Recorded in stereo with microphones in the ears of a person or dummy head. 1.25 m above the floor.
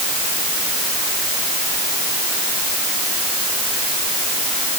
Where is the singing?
No singing in this recording.